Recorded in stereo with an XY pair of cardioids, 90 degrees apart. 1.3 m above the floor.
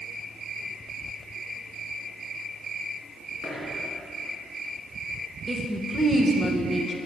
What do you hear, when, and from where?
3.4 s a dropped coin: 60° right, 3.5 m
5.5 s a woman speaking: 25° right, 1.4 m